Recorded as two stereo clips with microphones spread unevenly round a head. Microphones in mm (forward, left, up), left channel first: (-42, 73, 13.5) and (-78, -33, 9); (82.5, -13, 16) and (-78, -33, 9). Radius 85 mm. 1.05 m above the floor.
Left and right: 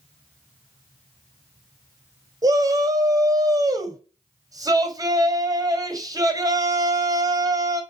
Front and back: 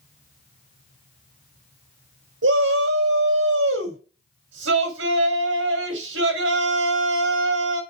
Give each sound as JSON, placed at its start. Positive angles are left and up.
{"t": 2.4, "sound": "a shout", "azimuth_deg": -170, "distance_m": 3.5}